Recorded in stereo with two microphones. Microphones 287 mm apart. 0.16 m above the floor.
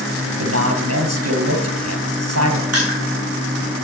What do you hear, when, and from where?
0.4 s a man speaking: 70° right (ahead or behind), 2.5 m
2.7 s crushing: 60° right (ahead or behind), 7.5 m